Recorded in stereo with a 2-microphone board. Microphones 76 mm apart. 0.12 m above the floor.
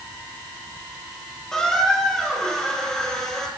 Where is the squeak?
5° left (ahead or behind), 1.8 m.